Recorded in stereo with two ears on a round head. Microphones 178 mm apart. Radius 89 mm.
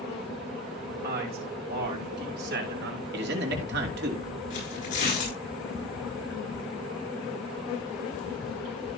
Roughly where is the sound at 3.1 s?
Right.